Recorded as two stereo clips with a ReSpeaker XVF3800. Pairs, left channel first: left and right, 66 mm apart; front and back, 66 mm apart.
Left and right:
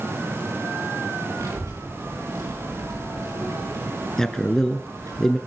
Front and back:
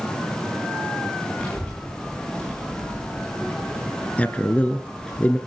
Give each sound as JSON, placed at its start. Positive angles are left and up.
{"t": 1.4, "sound": "a child speaking", "azimuth_deg": -65, "distance_m": 6.5}
{"t": 4.2, "sound": "a man speaking", "azimuth_deg": 20, "distance_m": 1.2}